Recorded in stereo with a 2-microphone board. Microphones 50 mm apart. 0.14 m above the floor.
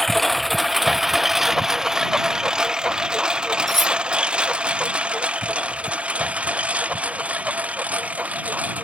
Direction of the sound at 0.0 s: 5° left (ahead or behind).